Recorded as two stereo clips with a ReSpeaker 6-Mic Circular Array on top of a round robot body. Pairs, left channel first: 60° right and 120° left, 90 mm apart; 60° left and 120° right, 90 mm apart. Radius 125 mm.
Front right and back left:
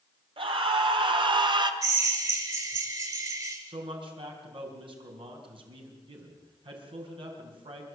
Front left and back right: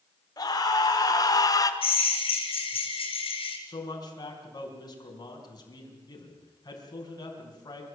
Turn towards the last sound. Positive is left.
turn(degrees=100)